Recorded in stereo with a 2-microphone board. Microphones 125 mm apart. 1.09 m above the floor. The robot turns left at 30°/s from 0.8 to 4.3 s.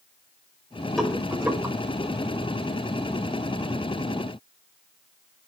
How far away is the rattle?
About 5.5 m.